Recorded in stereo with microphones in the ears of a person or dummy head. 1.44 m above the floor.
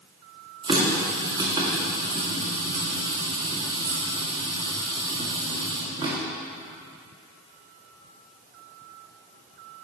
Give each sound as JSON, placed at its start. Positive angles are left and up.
{"t": 0.6, "sound": "a running tap", "side_deg": -25, "distance_m": 1.6}